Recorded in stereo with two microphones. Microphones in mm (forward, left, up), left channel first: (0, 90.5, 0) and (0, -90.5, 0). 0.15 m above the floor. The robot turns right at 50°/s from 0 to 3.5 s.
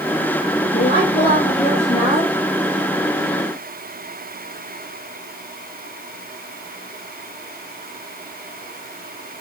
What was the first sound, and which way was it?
A woman speaking, 80° left.